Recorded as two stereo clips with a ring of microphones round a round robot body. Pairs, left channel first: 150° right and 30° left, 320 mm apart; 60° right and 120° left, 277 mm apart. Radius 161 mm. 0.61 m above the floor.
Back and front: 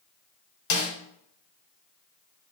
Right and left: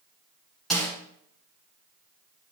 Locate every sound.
0.7 s a snare drum: 150° right, 1.9 m